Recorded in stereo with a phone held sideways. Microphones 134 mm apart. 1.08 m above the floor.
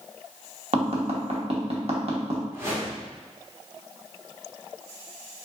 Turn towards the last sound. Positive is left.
turn(degrees=-20)  # may be behind; listen again after turning